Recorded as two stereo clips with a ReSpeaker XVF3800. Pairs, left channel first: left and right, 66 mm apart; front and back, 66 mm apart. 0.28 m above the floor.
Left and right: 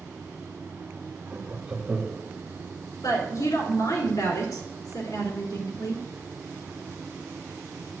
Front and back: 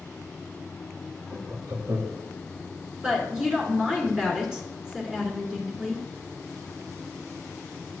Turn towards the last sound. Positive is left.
turn(degrees=100)